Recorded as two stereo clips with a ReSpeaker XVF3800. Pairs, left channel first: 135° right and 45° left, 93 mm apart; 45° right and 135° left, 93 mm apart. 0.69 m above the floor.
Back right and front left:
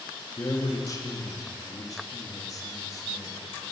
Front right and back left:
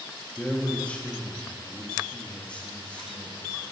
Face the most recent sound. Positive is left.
turn(degrees=-115)